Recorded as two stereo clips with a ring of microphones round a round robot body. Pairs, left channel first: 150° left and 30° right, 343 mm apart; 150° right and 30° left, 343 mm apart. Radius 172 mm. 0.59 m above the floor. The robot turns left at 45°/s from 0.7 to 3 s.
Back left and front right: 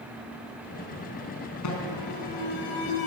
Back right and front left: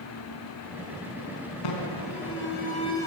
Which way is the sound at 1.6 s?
170° right.